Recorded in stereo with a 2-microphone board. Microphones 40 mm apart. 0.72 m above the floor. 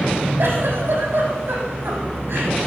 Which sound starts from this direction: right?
A giggle, at 0.4 s.